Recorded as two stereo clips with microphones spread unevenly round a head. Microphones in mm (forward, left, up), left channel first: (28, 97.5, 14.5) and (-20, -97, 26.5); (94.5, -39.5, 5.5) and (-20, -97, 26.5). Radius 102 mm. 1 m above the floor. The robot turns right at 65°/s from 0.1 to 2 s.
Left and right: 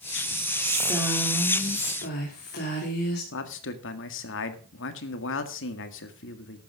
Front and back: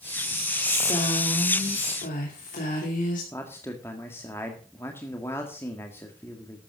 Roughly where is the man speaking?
Left.